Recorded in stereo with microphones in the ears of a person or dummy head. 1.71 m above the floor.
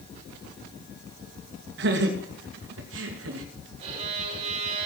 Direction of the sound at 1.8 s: 60° right (ahead or behind).